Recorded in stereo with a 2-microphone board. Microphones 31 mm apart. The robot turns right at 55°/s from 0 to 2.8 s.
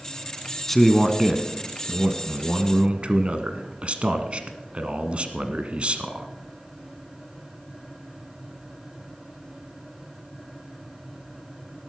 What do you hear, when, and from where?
0.7 s a man speaking: 165° left, 1.2 m; by 6.3 s 80° right, 1.2 m